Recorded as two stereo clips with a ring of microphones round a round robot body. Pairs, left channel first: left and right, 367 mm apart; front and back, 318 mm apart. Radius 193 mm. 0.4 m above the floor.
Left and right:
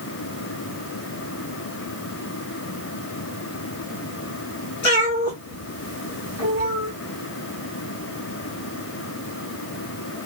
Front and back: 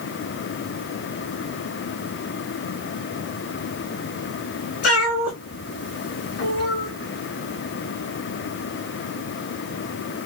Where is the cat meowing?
45° left, 2.0 m.